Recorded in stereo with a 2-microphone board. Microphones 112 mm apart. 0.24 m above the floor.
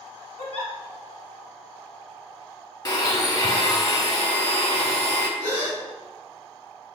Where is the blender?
35° left (ahead or behind), 0.6 m.